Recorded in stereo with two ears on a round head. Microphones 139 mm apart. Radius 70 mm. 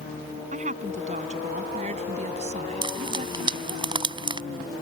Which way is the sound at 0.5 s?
50° right (ahead or behind).